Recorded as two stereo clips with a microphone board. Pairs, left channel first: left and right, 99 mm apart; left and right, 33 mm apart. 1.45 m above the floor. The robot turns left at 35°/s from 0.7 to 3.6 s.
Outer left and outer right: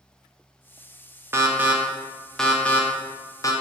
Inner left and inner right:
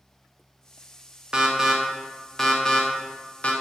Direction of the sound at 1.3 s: 25° right (ahead or behind).